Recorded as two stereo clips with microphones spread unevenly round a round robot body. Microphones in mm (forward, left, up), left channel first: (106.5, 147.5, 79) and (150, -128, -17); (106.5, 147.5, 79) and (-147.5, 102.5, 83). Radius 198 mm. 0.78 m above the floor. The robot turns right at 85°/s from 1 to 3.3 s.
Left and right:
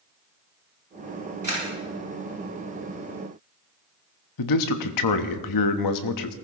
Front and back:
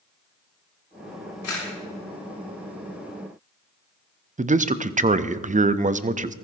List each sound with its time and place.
1.4 s a camera shutter: 20° right, 7 m; by 1.7 s straight ahead, 7 m
4.4 s a man speaking: 125° left, 0.9 m